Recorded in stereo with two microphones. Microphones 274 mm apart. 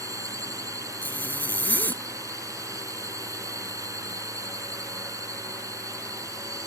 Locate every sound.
0.0 s a drone: 10° right (ahead or behind)
1.0 s a zipper: 5° left (ahead or behind)